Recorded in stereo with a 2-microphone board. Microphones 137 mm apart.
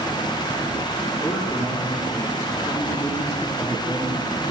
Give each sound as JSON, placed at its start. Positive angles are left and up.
{"t": 1.2, "sound": "a man speaking", "side_deg": 25, "distance_m": 5.5}